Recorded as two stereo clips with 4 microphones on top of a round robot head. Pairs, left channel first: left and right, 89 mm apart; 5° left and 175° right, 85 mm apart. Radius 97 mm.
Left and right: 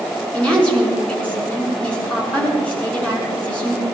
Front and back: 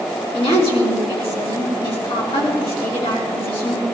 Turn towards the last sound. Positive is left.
turn(degrees=10)